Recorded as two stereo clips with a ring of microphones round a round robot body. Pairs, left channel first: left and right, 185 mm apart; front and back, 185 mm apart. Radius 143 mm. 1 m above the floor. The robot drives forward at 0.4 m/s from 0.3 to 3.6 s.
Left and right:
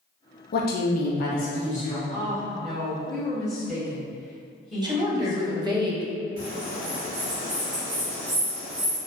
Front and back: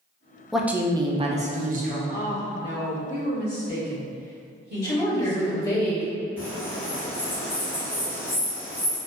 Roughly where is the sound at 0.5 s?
Left.